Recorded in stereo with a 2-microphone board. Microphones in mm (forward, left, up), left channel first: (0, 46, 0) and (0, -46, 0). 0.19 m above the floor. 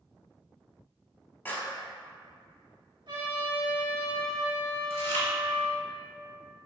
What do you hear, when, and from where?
1.4 s a clap: 20° left (ahead or behind), 0.8 m
3.1 s a trumpet: 65° right (ahead or behind), 1.6 m
4.9 s chewing: 30° left (ahead or behind), 1.1 m